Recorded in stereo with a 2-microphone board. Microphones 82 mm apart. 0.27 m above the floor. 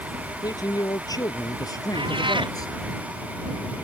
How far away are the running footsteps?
No running footsteps in this recording.